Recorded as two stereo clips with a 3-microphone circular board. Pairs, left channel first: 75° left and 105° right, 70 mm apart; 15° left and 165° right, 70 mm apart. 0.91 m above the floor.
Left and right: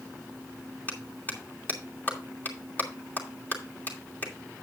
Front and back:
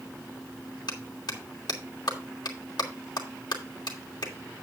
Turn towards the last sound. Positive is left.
turn(degrees=15)